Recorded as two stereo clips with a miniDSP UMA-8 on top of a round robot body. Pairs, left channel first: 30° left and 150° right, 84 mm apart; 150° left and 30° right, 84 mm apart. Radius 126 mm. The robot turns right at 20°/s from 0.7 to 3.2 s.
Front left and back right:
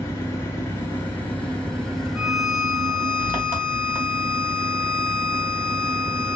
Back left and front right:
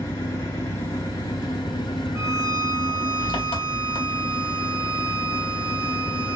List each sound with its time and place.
0.0 s an engine running: 90° left, 2 m; by 6.4 s 140° left, 2 m
2.1 s a violin: 70° right, 1.6 m; by 6.4 s 50° right, 1.6 m